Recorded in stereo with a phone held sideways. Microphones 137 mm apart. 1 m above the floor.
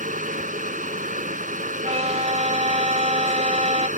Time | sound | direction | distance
0.0 | a fan | 80° right | ?
1.8 | a violin | 55° right (ahead or behind) | ?